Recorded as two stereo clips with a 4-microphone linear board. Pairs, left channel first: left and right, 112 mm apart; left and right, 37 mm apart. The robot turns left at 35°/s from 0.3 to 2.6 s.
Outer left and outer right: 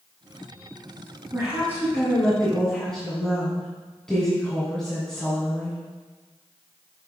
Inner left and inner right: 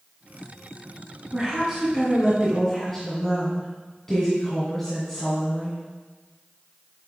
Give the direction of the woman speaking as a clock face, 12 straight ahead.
5 o'clock.